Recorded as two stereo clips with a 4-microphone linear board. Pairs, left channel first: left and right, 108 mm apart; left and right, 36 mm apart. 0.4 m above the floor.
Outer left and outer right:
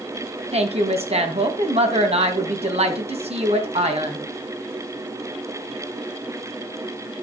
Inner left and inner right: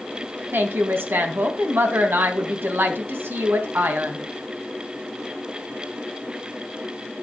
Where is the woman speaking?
70° right (ahead or behind), 2.5 m.